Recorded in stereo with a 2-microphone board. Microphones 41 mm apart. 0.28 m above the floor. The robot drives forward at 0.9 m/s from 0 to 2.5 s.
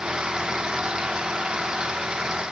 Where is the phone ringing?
No phone ringing in this recording.